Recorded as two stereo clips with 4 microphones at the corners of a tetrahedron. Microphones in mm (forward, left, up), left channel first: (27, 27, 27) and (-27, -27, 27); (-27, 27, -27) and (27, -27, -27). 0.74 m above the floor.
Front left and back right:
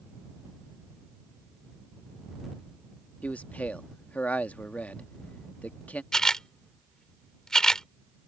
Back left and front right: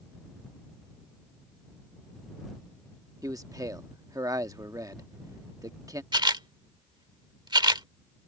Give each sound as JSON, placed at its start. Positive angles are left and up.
{"t": 3.2, "sound": "a man speaking", "azimuth_deg": -25}
{"t": 6.1, "sound": "a camera shutter", "azimuth_deg": -35}